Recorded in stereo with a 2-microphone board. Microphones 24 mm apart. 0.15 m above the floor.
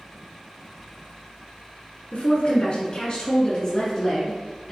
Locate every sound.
2.1 s a woman speaking: 45° left (ahead or behind), 1.6 m; by 4.7 s 5° left (ahead or behind), 1.6 m